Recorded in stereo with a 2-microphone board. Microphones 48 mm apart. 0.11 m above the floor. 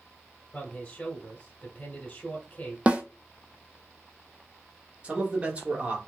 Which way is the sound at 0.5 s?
25° left (ahead or behind).